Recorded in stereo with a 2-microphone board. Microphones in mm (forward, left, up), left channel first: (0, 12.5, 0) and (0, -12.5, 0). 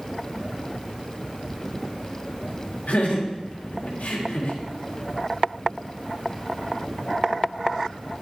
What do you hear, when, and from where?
2.9 s laughter: 90° left, 2.5 m